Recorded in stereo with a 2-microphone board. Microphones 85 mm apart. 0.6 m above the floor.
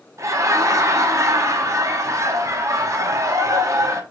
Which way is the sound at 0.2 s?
35° right (ahead or behind).